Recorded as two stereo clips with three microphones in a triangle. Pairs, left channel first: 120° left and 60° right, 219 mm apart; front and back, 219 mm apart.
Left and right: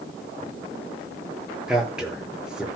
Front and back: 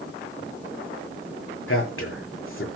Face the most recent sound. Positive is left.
turn(degrees=25)